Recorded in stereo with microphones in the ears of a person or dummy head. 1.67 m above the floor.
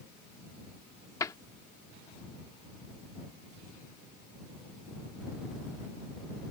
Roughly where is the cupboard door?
Left.